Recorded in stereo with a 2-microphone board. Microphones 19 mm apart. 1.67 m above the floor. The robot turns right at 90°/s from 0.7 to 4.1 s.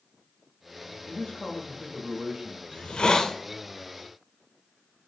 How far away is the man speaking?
About 0.7 m.